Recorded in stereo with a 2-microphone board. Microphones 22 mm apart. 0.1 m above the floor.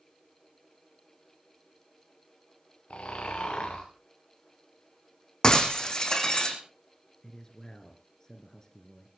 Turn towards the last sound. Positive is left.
turn(degrees=30)  # may be behind; listen again after turning